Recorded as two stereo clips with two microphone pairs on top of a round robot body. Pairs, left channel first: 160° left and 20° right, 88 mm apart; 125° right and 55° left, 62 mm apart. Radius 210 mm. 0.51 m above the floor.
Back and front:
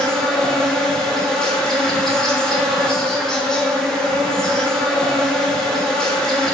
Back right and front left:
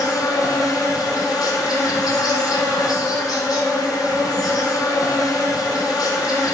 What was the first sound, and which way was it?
An insect, 115° right.